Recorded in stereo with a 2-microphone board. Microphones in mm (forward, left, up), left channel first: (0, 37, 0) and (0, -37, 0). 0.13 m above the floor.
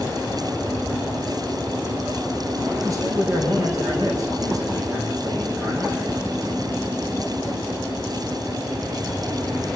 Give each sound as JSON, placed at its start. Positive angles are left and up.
{"t": 2.8, "sound": "a man speaking", "side_deg": -45, "distance_m": 8.0}